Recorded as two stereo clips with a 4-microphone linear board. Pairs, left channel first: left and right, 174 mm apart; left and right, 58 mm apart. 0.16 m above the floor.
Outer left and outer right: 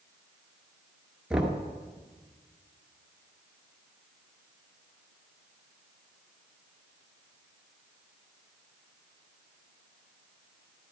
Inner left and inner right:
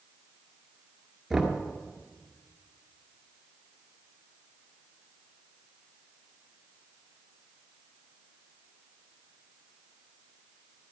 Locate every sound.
1.3 s knocking: 5° right (ahead or behind), 1.7 m